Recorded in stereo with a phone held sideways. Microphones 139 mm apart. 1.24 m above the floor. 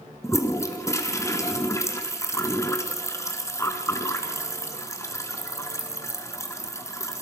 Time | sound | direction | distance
0.2 | a toilet flushing | 20° left (ahead or behind) | 2.5 m